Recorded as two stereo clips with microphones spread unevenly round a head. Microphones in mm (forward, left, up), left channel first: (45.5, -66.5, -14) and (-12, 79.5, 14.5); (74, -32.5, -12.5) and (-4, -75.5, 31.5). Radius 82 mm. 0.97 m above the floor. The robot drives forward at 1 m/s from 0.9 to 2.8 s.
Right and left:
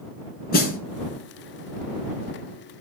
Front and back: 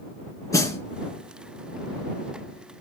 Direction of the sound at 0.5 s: 35° right.